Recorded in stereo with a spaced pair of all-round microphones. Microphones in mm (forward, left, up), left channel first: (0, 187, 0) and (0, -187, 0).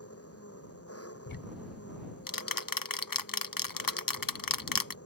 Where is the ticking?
60° left (ahead or behind).